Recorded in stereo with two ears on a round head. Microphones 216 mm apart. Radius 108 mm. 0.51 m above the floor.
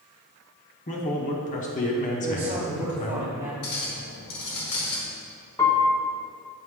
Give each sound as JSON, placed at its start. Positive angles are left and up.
{"t": 0.9, "sound": "a man speaking", "side_deg": 30, "distance_m": 0.8}
{"t": 2.2, "sound": "a man speaking", "side_deg": -20, "distance_m": 1.8}
{"t": 3.6, "sound": "a clink", "side_deg": 70, "distance_m": 1.5}
{"t": 5.6, "sound": "a piano", "side_deg": 15, "distance_m": 0.9}